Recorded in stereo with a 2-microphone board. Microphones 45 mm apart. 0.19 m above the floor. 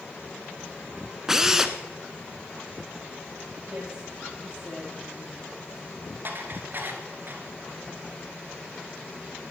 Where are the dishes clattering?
50° right (ahead or behind), 2.0 m.